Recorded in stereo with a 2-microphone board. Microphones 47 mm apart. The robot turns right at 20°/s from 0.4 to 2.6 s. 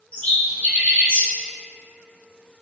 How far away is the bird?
About 1.8 m.